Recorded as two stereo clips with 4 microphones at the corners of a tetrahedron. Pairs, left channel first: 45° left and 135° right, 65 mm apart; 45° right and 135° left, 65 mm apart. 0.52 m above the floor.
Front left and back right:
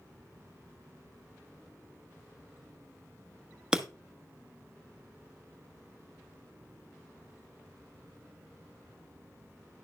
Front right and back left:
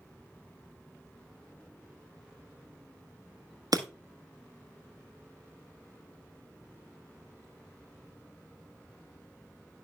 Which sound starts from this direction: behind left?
Breaking glass, at 3.7 s.